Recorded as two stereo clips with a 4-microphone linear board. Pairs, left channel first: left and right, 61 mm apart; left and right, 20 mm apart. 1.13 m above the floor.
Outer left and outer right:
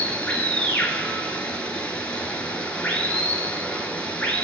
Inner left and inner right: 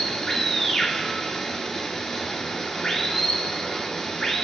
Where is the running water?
20° left (ahead or behind), 4 m.